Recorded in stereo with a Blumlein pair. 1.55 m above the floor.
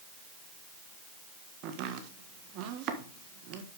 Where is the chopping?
40° right, 1.5 m.